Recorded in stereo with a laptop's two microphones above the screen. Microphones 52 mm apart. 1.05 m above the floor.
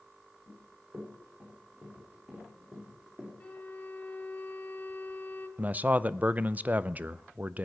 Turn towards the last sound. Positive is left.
turn(degrees=-30)  # may be behind; listen again after turning